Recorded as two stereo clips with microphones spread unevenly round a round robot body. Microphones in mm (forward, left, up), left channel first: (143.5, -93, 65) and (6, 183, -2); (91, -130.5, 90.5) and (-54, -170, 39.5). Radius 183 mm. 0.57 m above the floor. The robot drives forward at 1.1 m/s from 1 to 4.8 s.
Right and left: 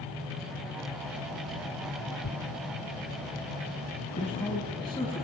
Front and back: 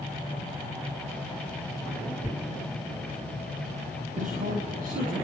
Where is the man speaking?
140° right, 3.5 m; by 5.2 s 145° right, 4 m.